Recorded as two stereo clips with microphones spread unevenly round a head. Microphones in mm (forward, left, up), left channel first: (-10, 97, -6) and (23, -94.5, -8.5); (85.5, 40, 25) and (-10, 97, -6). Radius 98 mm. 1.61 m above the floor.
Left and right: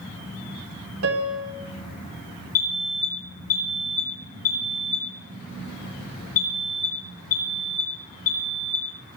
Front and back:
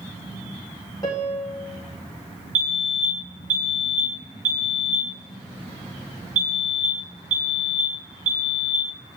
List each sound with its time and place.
1.0 s a piano: 100° right, 3.5 m
2.5 s a fire alarm: 150° left, 8.5 m